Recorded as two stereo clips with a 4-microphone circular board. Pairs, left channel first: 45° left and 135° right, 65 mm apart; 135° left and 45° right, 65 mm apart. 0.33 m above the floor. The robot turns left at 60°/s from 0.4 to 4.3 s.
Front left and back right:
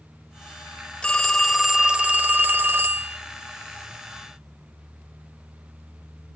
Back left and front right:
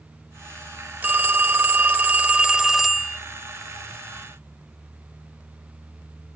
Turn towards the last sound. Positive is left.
turn(degrees=145)